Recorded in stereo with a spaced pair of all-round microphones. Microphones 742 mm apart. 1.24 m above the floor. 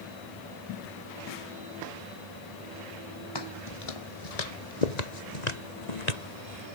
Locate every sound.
3.4 s footsteps: 35° left (ahead or behind); by 6.7 s 55° left (ahead or behind)